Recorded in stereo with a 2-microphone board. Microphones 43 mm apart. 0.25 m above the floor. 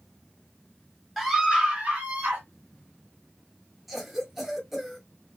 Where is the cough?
5° right (ahead or behind), 1.0 m.